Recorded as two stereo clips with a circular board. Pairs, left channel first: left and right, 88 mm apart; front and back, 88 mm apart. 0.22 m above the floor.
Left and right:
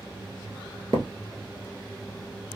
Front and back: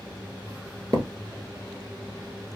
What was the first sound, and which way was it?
A thud, 135° right.